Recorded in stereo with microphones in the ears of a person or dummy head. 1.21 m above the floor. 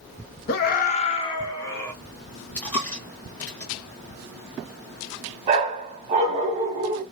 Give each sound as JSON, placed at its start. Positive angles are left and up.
{"t": 0.5, "sound": "a scream", "side_deg": 55, "distance_m": 0.7}
{"t": 2.5, "sound": "a dropped coin", "side_deg": 10, "distance_m": 0.5}
{"t": 5.5, "sound": "a dog barking", "side_deg": -25, "distance_m": 1.0}